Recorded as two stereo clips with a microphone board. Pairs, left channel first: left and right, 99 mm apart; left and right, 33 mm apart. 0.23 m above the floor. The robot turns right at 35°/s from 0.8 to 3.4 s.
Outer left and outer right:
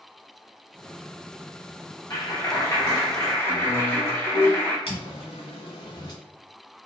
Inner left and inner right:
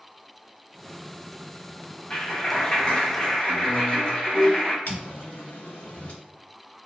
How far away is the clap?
About 0.8 m.